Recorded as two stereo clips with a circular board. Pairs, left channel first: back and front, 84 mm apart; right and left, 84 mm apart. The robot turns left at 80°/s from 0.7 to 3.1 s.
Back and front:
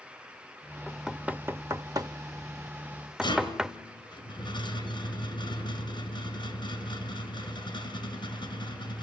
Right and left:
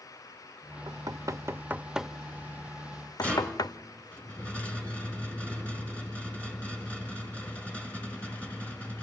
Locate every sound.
0.9 s knocking: 100° left, 0.6 m; by 3.8 s 80° right, 0.6 m
3.2 s a rattle: 165° right, 4.5 m